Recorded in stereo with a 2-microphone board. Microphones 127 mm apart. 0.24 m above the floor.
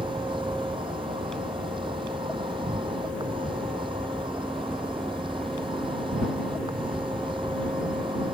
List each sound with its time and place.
0.0 s an insect: 45° right (ahead or behind)